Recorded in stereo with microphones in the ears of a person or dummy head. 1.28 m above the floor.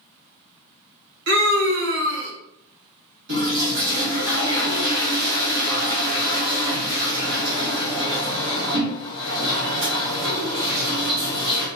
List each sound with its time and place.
1.3 s a scream: 60° right (ahead or behind), 0.9 m
3.3 s a toilet flushing: 60° right (ahead or behind), 1.6 m